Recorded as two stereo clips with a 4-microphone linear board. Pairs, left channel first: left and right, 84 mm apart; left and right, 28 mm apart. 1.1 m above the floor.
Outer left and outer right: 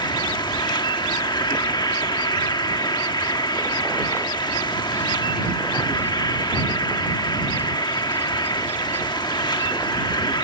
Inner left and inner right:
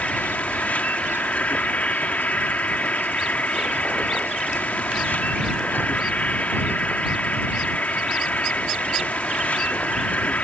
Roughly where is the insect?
Left.